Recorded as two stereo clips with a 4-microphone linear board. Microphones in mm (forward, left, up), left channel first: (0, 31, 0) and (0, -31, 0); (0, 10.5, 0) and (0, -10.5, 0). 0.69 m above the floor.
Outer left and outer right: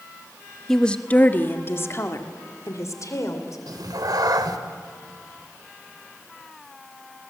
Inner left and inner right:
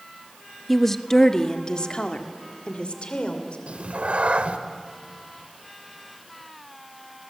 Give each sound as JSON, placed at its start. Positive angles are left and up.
{"t": 0.7, "sound": "a woman speaking", "side_deg": 5, "distance_m": 1.0}
{"t": 3.7, "sound": "a cat meowing", "side_deg": -85, "distance_m": 1.5}